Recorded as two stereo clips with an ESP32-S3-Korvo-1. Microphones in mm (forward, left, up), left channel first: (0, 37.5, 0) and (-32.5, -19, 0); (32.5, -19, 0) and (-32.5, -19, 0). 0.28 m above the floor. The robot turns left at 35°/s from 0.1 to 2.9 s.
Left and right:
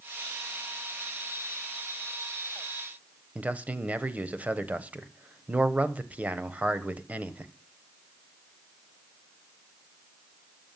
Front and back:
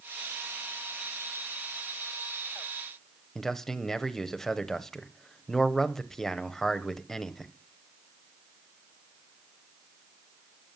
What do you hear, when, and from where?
3.4 s a man speaking: 80° right, 1.1 m